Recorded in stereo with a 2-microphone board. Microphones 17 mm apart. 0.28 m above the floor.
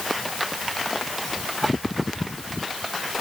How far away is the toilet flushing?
I don't hear a toilet flushing.